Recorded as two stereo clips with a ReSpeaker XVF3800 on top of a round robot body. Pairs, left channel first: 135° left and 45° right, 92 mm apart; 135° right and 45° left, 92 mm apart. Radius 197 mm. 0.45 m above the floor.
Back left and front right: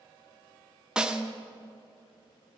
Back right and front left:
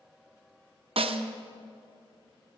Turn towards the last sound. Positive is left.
turn(degrees=35)